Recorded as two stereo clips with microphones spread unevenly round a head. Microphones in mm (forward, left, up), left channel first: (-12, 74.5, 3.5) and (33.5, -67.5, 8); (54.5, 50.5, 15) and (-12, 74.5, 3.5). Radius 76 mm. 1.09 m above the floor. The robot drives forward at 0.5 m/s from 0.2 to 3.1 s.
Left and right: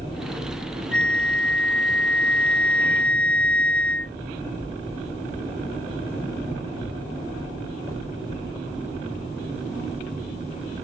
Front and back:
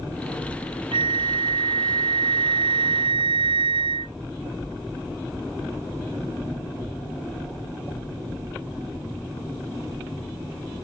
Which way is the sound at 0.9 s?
165° right.